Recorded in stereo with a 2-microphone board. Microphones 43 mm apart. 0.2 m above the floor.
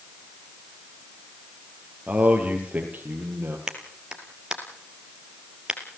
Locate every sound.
2.1 s a man speaking: 25° right (ahead or behind), 5.5 m; by 3.6 s 40° right (ahead or behind), 7 m
3.7 s a clap: 15° right (ahead or behind), 3 m